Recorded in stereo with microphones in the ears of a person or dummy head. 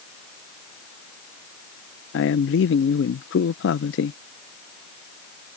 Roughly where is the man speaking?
Left.